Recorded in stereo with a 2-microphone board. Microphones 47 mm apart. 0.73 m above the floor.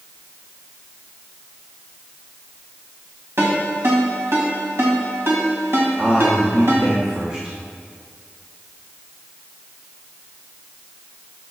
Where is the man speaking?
20° right (ahead or behind), 1.2 m.